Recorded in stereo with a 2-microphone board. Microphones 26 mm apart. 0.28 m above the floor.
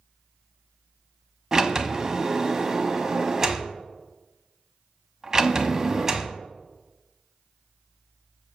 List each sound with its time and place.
1.5 s a sliding door: 20° right (ahead or behind), 0.9 m